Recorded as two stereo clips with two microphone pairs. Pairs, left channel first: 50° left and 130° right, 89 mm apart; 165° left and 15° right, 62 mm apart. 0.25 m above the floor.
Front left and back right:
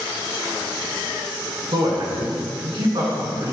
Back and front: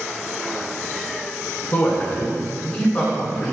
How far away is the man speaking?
About 3 m.